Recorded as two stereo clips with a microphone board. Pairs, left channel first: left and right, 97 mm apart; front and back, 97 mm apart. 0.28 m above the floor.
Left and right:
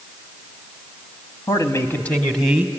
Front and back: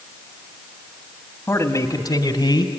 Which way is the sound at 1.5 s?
55° left.